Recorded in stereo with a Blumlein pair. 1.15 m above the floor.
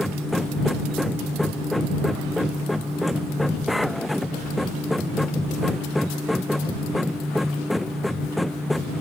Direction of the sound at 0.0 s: 5° left.